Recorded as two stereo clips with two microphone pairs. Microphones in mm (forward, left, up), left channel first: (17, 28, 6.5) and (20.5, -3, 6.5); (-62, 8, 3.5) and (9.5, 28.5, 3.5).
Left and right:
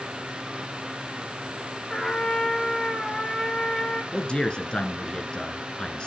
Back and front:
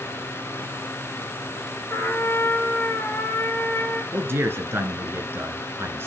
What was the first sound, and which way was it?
A trumpet, 160° left.